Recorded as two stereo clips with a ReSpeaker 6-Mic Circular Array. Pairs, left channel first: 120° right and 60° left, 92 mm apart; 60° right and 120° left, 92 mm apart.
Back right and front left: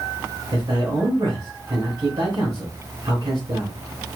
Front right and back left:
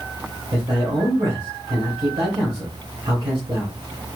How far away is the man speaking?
About 3 m.